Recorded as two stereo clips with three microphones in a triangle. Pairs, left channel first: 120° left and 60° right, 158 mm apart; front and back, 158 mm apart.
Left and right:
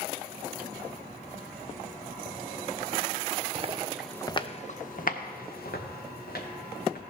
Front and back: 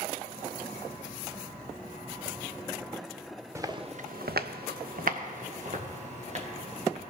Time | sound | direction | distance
3.5 | footsteps | 110° right | 1.1 m